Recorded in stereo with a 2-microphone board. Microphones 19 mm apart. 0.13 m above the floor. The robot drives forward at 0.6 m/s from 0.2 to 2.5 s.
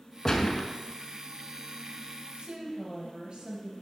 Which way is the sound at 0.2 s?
25° left (ahead or behind).